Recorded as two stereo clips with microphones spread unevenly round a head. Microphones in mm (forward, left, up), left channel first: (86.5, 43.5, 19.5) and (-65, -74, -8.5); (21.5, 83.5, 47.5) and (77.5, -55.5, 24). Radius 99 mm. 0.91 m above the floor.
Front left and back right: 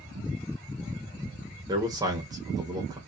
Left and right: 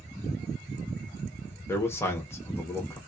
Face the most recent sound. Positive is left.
turn(degrees=-170)